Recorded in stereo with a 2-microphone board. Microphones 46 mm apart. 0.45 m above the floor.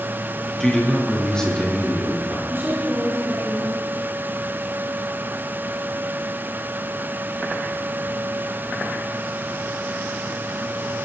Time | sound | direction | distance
0.6 | a man speaking | 15° left (ahead or behind) | 6.5 m
2.5 | a woman speaking | 60° right (ahead or behind) | 7 m